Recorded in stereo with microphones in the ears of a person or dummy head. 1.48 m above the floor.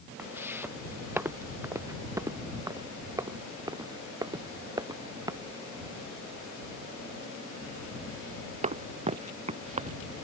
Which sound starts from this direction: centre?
Footsteps, at 0.2 s.